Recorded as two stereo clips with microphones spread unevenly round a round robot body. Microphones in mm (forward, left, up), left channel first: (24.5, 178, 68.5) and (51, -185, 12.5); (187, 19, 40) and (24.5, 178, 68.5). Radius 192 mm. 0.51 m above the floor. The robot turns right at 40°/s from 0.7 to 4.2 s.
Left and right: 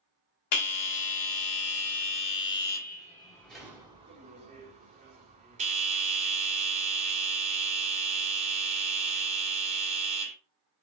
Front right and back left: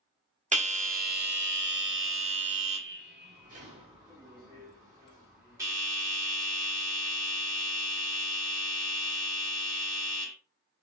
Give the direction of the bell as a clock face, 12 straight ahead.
9 o'clock.